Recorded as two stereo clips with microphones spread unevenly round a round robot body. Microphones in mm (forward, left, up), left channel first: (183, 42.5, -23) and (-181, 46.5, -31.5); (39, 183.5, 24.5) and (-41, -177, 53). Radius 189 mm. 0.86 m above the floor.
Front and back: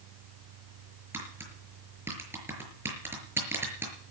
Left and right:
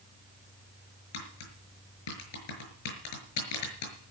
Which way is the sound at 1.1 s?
95° left.